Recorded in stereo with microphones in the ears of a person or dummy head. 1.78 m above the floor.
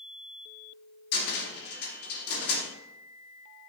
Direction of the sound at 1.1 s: 60° left (ahead or behind).